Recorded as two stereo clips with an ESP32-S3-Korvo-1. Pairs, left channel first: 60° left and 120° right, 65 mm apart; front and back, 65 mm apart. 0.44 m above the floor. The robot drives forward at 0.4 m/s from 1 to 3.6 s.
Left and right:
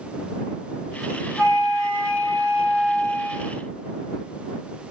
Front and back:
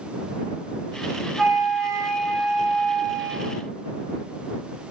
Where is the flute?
85° right, 1.6 m; by 3.7 s 125° right, 1.8 m.